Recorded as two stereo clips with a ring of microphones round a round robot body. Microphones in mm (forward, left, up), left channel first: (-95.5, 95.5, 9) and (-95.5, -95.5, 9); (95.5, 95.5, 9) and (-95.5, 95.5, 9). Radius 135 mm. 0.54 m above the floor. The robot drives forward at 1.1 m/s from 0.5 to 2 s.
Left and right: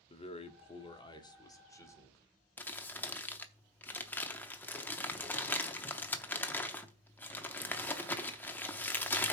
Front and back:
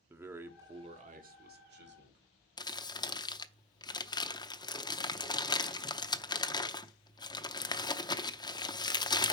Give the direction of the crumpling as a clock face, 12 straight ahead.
11 o'clock.